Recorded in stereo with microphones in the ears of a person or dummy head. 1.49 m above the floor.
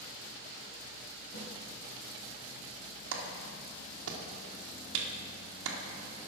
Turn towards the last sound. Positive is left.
turn(degrees=-85)